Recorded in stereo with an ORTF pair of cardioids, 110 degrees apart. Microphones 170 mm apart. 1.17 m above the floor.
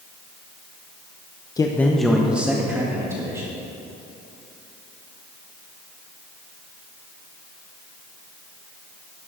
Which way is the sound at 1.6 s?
20° left.